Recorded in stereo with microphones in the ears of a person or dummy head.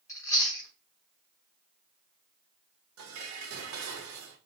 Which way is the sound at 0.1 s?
15° left (ahead or behind).